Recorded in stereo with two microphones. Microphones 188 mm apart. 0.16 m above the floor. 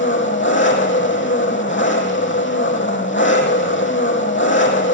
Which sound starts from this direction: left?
An engine running, at 0.0 s.